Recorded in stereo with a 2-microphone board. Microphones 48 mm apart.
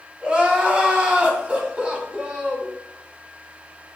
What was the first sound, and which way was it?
Crying, 20° right (ahead or behind).